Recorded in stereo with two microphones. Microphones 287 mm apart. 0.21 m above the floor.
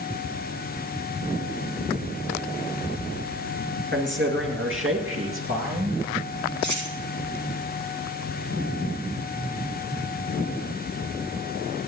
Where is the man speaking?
40° right (ahead or behind), 3 m; by 6.0 s 50° right (ahead or behind), 4.5 m.